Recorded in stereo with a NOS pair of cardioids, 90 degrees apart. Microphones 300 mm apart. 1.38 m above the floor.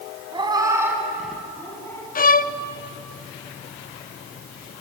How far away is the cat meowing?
About 5 m.